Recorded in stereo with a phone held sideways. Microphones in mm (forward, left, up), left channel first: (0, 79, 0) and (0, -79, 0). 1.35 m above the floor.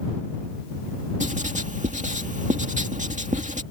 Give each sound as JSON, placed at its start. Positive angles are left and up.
{"t": 1.2, "sound": "writing", "side_deg": -55}